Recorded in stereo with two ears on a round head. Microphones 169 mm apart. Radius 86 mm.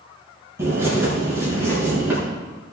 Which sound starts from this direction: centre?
A bird, at 0.6 s.